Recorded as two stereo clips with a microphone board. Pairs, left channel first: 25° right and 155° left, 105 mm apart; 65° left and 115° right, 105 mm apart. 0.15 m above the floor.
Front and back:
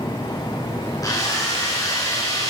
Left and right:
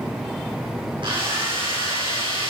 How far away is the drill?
About 7 m.